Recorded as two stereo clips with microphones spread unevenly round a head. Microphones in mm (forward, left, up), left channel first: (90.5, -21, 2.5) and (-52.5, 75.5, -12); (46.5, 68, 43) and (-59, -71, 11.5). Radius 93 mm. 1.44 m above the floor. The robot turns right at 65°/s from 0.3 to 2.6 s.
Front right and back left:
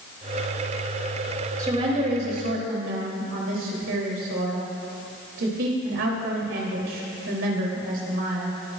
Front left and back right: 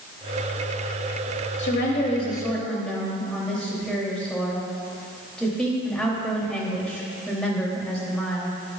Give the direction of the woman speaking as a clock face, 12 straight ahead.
10 o'clock.